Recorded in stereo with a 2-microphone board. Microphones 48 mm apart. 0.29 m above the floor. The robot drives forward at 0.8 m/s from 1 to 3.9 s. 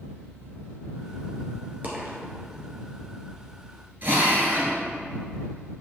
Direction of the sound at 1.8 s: 35° right (ahead or behind).